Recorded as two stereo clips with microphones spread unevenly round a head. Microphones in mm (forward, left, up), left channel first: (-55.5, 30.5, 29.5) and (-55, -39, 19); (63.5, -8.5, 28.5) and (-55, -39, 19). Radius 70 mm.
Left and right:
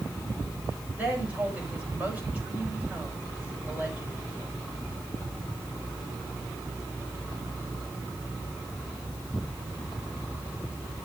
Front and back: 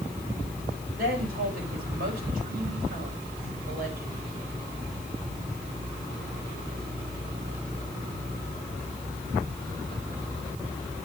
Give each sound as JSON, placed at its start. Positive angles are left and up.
{"t": 1.0, "sound": "a woman speaking", "azimuth_deg": -160, "distance_m": 5.5}